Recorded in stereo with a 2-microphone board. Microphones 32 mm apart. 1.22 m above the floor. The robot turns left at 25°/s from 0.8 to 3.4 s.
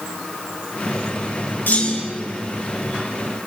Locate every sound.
1.7 s a clunk: 75° left (ahead or behind), 6 m; by 2.2 s 60° left (ahead or behind), 6 m